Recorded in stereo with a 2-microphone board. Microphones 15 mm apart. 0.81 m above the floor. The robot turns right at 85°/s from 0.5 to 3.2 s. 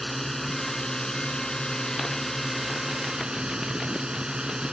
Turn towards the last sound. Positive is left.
turn(degrees=-120)